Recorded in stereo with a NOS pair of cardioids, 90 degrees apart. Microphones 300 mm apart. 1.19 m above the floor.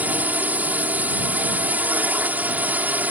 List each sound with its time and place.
0.0 s a drone: 5° right